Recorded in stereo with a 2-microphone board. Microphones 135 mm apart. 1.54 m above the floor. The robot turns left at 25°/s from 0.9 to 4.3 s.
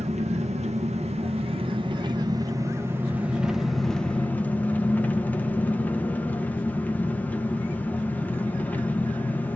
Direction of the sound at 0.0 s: 110° right.